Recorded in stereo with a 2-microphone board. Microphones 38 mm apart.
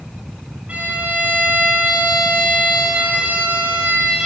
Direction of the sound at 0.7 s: 35° right (ahead or behind).